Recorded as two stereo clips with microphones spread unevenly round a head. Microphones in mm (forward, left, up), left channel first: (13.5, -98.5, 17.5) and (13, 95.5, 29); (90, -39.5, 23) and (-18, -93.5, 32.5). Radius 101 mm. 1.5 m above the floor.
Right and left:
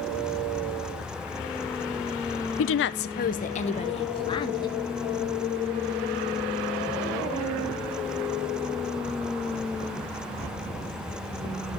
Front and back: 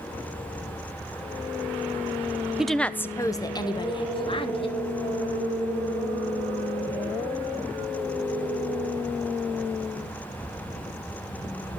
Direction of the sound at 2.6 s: 70° right.